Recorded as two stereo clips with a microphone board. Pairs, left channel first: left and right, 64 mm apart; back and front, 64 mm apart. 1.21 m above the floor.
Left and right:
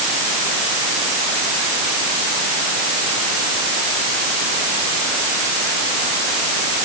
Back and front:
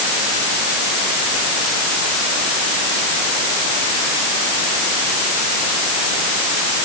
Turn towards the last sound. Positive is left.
No sound to turn to.